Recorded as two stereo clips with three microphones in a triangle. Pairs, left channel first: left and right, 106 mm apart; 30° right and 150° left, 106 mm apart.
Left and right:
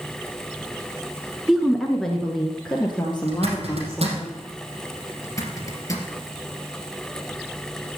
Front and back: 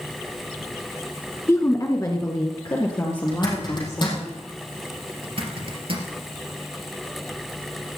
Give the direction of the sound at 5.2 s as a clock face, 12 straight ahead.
7 o'clock.